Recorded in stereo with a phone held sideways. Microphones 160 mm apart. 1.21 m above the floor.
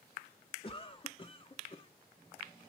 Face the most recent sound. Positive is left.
turn(degrees=30)  # may be behind; listen again after turning